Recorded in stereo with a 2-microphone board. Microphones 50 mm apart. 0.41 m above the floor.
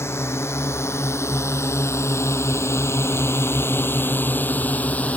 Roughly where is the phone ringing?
I don't hear a phone ringing.